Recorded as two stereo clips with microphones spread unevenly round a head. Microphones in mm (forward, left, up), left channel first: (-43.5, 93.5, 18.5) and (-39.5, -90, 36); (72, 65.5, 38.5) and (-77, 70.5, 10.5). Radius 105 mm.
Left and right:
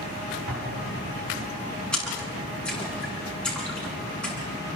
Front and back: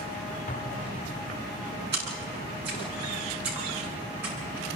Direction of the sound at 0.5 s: 50° right.